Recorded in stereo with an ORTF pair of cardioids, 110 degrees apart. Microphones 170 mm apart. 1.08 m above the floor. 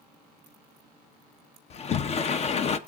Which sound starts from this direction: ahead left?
A sliding door, at 1.7 s.